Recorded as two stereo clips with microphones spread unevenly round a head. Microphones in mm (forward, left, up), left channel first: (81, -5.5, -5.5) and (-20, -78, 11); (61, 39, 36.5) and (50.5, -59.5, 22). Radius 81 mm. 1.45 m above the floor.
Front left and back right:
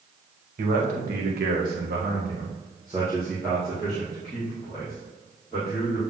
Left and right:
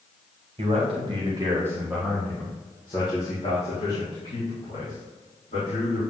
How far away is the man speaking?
About 2 m.